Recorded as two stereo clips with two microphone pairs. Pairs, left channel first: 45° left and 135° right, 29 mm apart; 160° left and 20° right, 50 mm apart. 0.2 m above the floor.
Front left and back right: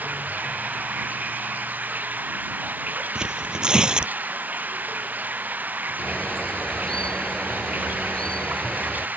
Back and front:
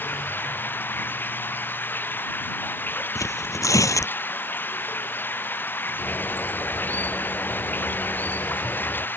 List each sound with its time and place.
0.0 s running water: 145° right
3.1 s tearing paper: 165° left
6.0 s a bird: 105° left